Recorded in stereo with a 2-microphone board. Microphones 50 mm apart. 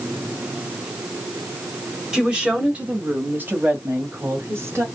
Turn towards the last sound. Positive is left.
turn(degrees=-55)  # may be behind; listen again after turning